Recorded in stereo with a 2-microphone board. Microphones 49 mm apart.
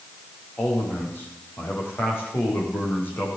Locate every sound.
0.6 s a man speaking: 50° left (ahead or behind), 7.5 m